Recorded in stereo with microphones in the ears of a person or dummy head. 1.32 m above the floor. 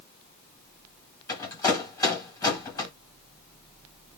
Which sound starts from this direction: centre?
A rattle, at 1.3 s.